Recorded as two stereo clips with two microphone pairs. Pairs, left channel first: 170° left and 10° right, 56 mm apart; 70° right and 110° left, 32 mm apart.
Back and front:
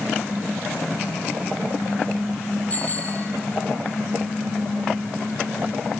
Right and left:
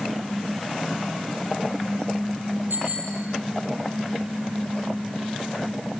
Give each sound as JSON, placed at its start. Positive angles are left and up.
{"t": 2.7, "sound": "a bicycle bell", "azimuth_deg": 110, "distance_m": 5.0}